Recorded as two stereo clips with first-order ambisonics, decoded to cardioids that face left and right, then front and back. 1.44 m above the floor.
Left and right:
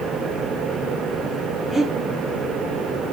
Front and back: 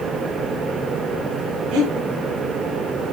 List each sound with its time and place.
1.7 s breathing: 170° left, 6 m